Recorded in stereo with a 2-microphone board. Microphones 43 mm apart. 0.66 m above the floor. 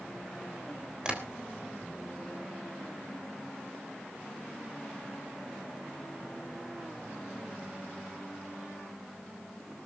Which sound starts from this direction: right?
Tapping, at 1.1 s.